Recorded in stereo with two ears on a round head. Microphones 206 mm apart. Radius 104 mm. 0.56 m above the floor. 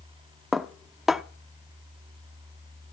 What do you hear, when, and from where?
0.5 s dishes clattering: centre (ahead or behind), 0.6 m